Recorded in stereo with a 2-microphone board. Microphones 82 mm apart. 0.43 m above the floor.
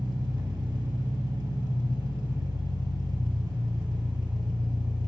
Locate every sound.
0.0 s an engine running: 60° right (ahead or behind), 1.0 m